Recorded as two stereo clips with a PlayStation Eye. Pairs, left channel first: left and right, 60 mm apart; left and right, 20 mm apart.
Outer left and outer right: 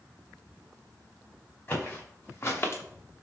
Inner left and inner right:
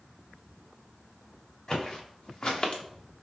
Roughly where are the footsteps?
Left.